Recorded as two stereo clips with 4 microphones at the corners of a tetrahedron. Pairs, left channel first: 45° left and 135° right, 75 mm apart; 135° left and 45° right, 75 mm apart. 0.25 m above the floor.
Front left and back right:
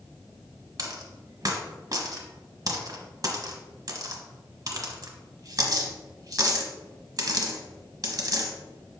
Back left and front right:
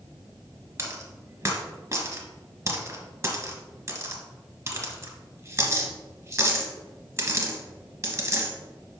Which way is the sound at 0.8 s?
95° right.